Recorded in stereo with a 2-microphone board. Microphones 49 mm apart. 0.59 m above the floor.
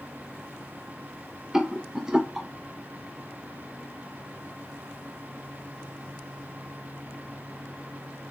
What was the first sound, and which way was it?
A rattle, 10° right (ahead or behind).